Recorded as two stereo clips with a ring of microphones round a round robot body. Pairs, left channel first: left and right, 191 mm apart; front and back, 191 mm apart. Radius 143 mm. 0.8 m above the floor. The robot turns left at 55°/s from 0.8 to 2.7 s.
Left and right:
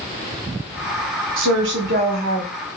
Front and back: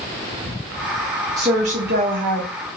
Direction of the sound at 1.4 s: 105° right.